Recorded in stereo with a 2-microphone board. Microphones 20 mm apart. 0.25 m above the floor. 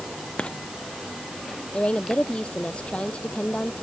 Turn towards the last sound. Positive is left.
turn(degrees=70)  # may be behind; listen again after turning